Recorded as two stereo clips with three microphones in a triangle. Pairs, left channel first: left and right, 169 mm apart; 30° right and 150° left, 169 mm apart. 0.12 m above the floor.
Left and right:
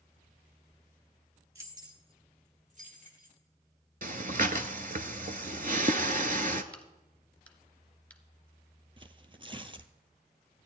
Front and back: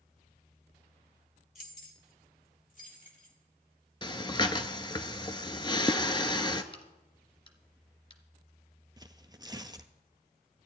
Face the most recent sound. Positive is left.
turn(degrees=-145)